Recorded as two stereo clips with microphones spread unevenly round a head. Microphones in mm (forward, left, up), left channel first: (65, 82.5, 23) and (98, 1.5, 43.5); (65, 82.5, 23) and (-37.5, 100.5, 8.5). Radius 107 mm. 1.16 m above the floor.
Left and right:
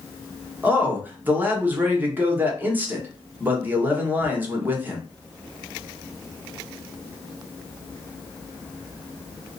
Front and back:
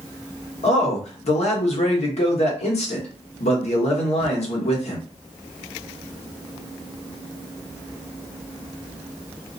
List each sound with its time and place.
0.6 s a man speaking: 5° left, 1.1 m